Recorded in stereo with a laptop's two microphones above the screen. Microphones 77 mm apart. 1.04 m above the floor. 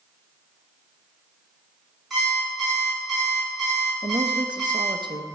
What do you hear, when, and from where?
2.1 s an alarm clock: centre (ahead or behind), 5 m
4.0 s a woman speaking: 75° right (ahead or behind), 0.7 m